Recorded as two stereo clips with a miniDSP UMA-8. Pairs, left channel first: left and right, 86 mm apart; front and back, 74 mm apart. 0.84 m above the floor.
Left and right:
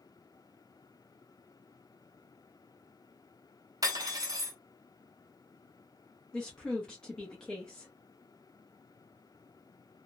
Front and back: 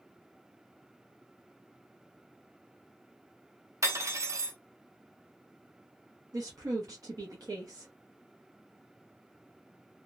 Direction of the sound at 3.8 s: 135° right.